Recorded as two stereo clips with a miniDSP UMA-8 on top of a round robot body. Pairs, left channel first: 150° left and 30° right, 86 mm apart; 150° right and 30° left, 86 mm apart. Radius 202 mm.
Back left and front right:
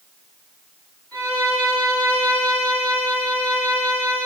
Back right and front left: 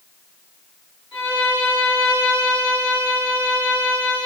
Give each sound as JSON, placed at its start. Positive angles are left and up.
{"t": 1.1, "sound": "a violin", "azimuth_deg": -130, "distance_m": 7.5}